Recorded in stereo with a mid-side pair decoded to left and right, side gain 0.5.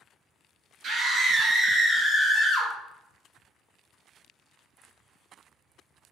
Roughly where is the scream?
Ahead right.